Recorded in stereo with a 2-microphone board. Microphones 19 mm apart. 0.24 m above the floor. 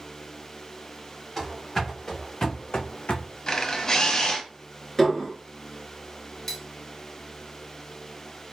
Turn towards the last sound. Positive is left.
turn(degrees=20)  # may be behind; listen again after turning